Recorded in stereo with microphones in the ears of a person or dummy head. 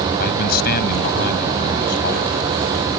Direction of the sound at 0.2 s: 50° left (ahead or behind).